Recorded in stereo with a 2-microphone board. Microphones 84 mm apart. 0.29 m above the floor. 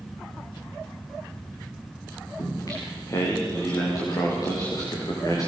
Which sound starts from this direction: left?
Singing, at 2.4 s.